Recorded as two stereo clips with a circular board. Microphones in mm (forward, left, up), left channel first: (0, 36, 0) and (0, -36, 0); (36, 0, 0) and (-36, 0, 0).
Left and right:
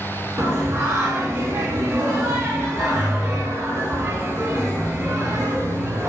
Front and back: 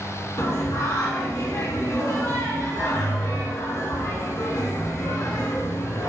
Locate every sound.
0.4 s singing: 40° right, 0.6 m